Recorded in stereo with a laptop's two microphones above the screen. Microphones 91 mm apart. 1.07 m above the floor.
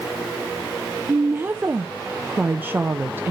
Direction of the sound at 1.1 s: 20° right (ahead or behind).